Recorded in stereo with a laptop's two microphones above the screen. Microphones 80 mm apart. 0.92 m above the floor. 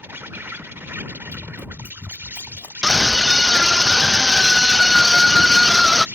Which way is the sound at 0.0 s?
25° right (ahead or behind).